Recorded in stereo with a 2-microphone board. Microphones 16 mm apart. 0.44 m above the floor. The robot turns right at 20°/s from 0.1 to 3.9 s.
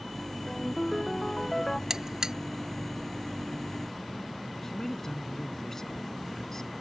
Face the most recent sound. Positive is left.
turn(degrees=35)  # may be behind; listen again after turning